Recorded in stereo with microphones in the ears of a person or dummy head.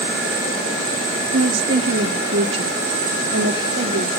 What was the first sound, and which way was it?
A woman speaking, 70° right (ahead or behind).